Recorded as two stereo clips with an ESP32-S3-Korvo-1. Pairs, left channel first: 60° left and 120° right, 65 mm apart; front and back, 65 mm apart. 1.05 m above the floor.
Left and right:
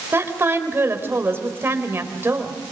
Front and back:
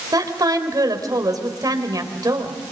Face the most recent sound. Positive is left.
turn(degrees=-170)